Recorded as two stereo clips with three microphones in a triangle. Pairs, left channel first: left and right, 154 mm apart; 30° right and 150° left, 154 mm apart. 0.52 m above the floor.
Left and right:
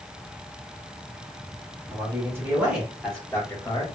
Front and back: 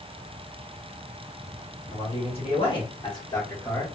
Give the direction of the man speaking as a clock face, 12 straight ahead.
1 o'clock.